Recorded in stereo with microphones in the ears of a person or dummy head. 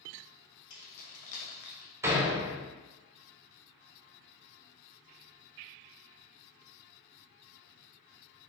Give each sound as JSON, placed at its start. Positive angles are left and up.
{"t": 0.7, "sound": "keys jangling", "side_deg": 70, "distance_m": 1.3}
{"t": 2.0, "sound": "a door slam", "side_deg": -15, "distance_m": 0.6}